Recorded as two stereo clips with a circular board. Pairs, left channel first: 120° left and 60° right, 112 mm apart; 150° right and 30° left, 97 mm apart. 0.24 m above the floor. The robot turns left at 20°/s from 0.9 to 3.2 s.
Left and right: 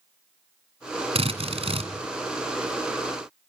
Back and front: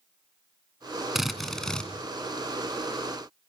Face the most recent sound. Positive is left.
turn(degrees=-95)